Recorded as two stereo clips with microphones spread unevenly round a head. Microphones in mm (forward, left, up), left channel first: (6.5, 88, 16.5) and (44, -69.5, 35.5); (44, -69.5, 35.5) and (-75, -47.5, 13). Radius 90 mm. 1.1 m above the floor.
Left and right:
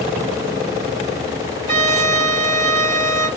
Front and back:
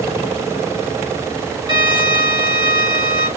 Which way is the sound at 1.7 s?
135° right.